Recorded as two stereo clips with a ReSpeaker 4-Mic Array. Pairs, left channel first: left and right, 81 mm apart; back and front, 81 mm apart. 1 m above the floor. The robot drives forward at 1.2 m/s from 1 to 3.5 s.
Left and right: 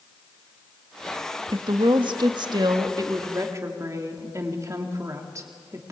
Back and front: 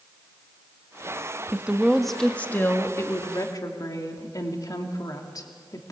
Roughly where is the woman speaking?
Right.